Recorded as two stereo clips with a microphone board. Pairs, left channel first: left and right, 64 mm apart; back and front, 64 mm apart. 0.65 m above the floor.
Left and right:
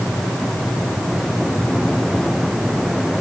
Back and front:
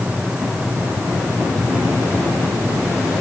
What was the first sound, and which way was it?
Only background noise.